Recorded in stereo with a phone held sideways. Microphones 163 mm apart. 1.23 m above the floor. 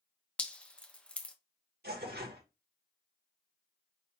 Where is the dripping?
5° left (ahead or behind), 0.7 m.